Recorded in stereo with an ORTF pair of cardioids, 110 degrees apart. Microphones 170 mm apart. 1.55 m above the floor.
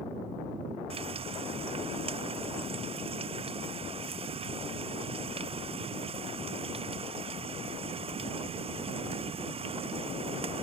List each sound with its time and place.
0.9 s frying: 30° right